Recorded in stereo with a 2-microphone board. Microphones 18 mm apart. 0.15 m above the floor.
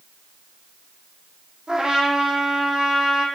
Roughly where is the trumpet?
Right.